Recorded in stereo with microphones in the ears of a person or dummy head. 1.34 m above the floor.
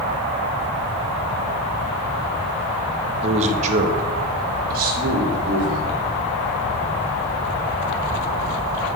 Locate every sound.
3.2 s a man speaking: 30° right (ahead or behind), 0.6 m; by 6.0 s 55° right (ahead or behind), 2.5 m